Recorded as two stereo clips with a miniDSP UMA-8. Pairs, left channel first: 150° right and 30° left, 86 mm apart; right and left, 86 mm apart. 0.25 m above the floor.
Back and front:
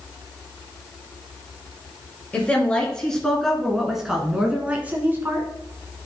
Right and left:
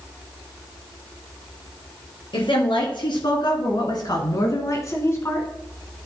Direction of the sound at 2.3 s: 75° right.